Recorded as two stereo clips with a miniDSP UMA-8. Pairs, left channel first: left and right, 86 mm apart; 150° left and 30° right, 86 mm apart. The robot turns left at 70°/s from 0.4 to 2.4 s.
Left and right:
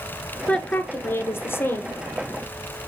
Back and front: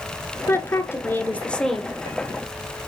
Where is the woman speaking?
160° left, 1.2 m; by 2.0 s 55° left, 1.2 m.